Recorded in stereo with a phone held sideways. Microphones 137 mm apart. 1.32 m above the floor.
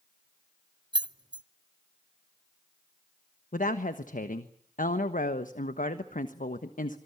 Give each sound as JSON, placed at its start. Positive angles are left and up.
{"t": 0.9, "sound": "keys jangling", "side_deg": -35, "distance_m": 0.5}
{"t": 3.5, "sound": "a woman speaking", "side_deg": 80, "distance_m": 1.2}